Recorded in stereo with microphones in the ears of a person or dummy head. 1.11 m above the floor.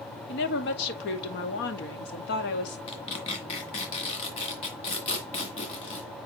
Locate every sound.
0.3 s a woman speaking: 60° left (ahead or behind), 1.8 m
2.9 s tearing paper: 35° left (ahead or behind), 2.0 m